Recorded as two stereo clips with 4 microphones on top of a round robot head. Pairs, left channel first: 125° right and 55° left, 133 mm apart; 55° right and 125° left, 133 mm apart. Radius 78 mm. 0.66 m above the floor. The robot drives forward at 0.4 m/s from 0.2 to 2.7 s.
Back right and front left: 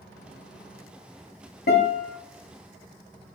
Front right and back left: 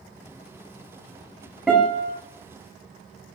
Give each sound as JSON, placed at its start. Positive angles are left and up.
{"t": 1.7, "sound": "a guitar", "azimuth_deg": -145, "distance_m": 1.1}